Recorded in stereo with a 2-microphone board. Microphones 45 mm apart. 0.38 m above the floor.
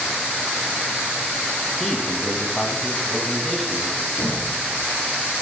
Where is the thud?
85° left, 6.5 m.